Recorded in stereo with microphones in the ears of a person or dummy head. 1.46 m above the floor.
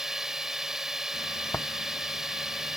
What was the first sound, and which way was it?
A drone, 5° right (ahead or behind).